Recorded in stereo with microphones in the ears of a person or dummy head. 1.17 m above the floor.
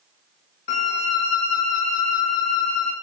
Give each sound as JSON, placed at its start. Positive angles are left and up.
{"t": 0.7, "sound": "a violin", "side_deg": 40, "distance_m": 0.9}